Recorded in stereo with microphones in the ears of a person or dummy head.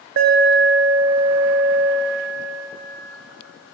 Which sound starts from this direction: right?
An alarm, at 0.2 s.